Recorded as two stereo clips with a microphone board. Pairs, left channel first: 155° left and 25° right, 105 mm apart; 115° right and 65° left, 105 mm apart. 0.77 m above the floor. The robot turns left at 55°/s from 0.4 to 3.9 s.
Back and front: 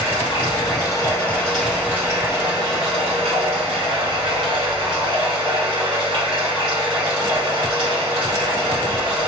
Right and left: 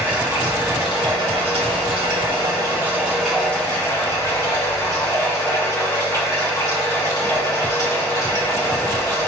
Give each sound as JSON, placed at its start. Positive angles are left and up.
{"t": 0.0, "sound": "running water", "azimuth_deg": 135, "distance_m": 1.8}